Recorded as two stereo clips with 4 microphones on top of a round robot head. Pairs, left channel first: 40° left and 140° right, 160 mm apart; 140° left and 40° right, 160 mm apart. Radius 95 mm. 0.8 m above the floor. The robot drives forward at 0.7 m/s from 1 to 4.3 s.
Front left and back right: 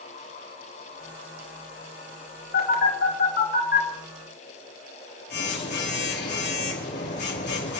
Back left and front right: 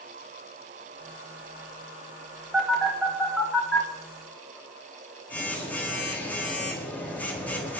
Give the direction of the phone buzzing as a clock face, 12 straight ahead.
11 o'clock.